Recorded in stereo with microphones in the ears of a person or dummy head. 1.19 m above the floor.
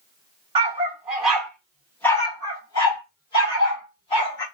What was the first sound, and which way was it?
A dog barking, 20° right (ahead or behind).